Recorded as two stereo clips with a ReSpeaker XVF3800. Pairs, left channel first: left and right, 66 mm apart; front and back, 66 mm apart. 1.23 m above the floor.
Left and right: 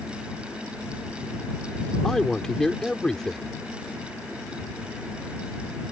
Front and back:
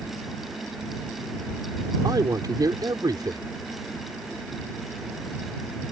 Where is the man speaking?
170° left.